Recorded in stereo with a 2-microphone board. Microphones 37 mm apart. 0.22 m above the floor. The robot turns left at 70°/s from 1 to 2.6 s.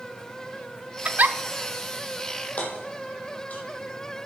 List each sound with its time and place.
1.1 s a giggle: 35° right (ahead or behind), 0.6 m; by 1.4 s 55° right (ahead or behind), 0.6 m
2.6 s hammering: 45° left (ahead or behind), 3.5 m